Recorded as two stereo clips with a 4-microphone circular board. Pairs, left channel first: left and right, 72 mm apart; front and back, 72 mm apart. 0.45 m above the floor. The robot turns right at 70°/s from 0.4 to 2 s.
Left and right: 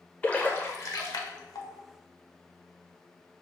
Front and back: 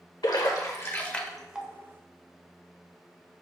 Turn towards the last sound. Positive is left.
turn(degrees=135)